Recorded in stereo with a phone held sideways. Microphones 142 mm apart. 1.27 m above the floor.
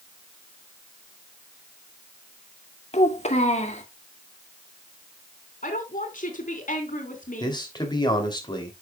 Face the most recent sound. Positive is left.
turn(degrees=30)  # may be behind; listen again after turning